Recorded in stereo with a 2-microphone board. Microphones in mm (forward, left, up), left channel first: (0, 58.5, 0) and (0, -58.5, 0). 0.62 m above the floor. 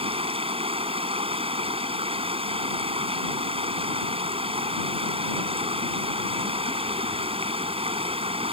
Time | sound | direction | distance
0.0 | running water | 55° right (ahead or behind) | ?